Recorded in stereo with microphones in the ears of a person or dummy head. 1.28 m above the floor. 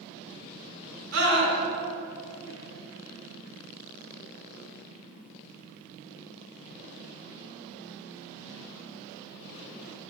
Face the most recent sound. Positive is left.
turn(degrees=-85)